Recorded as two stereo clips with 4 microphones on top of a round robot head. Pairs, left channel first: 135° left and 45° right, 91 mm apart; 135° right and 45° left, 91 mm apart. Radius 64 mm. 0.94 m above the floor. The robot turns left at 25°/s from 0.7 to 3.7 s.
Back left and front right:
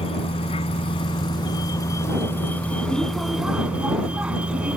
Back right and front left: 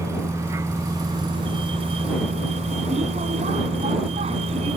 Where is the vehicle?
110° left; by 4.8 s 35° left.